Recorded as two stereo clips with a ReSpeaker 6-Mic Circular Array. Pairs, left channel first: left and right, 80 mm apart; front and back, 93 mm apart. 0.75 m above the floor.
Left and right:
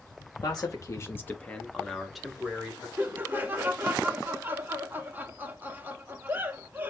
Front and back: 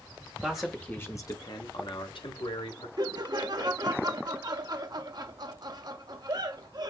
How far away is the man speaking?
About 0.7 m.